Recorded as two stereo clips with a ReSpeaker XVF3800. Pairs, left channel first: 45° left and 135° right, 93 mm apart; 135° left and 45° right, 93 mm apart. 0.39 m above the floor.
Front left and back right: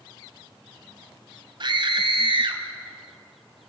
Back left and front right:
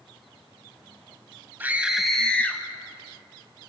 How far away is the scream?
About 1.9 m.